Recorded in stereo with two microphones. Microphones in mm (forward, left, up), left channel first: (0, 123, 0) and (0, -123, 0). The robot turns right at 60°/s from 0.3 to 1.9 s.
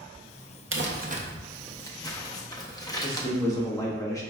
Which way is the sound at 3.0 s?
15° left (ahead or behind).